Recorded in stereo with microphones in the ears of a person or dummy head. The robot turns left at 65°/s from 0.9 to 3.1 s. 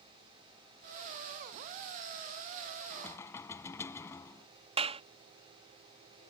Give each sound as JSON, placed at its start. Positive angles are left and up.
{"t": 2.9, "sound": "knocking", "side_deg": 5}
{"t": 4.8, "sound": "a clap", "side_deg": -30}